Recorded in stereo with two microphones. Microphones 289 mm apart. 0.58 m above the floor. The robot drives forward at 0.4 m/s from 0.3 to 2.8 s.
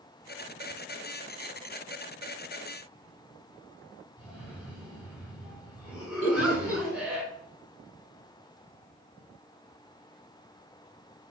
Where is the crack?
No crack in this recording.